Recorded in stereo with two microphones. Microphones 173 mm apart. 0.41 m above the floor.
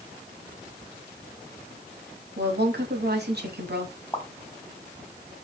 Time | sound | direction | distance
2.4 | a woman speaking | 70° right (ahead or behind) | 2.5 m
4.1 | a pop | 15° left (ahead or behind) | 1.9 m